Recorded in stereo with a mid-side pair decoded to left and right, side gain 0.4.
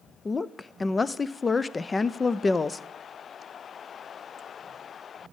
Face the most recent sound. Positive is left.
turn(degrees=30)